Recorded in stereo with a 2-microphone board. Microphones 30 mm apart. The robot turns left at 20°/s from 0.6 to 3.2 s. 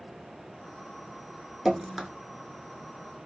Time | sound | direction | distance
1.6 | dripping | 10° right (ahead or behind) | 0.5 m